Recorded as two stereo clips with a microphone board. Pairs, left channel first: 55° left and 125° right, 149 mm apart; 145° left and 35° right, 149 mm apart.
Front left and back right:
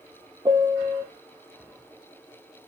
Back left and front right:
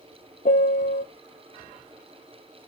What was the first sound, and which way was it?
A piano, 170° left.